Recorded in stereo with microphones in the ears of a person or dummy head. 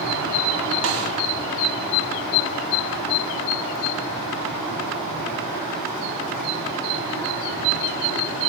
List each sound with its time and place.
0.8 s a snare drum: 70° right (ahead or behind), 1.3 m